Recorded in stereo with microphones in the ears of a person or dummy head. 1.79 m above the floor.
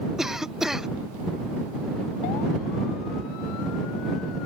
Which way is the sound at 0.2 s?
Centre (ahead or behind).